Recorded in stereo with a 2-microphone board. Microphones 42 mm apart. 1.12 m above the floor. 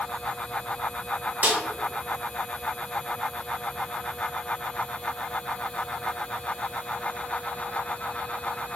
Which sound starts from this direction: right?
A snare drum, at 1.4 s.